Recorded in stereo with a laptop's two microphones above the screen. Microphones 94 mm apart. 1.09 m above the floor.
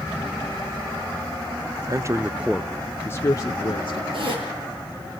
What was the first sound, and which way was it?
A man speaking, 40° right (ahead or behind).